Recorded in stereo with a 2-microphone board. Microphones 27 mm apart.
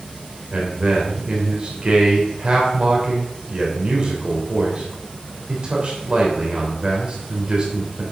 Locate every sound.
0.5 s a man speaking: 35° right (ahead or behind), 3 m